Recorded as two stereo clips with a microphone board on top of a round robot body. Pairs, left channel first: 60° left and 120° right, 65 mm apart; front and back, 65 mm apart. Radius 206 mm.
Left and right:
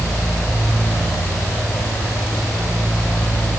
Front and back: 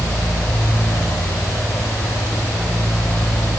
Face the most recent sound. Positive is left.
No sound to turn to.